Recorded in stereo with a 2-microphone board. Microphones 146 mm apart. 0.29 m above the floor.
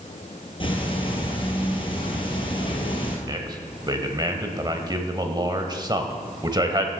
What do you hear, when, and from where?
0.6 s ticking: 35° left (ahead or behind), 1.9 m
3.3 s a man speaking: 30° right (ahead or behind), 1.0 m